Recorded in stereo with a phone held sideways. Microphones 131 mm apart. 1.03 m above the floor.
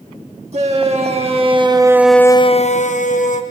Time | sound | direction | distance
0.5 | a shout | 55° right (ahead or behind) | 1.9 m